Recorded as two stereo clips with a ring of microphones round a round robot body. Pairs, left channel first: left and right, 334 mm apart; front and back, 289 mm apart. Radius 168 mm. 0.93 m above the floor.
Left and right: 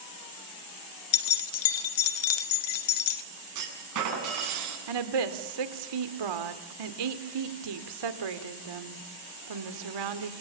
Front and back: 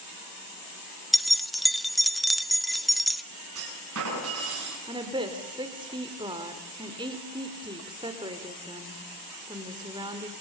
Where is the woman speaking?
105° right, 2.5 m.